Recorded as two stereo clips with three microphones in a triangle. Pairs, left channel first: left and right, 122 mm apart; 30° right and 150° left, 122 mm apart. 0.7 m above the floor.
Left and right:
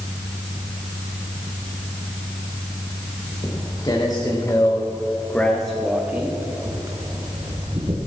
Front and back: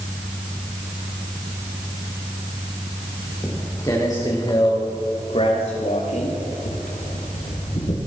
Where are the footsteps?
35° left, 3.5 m; by 8.0 s 55° right, 2.5 m.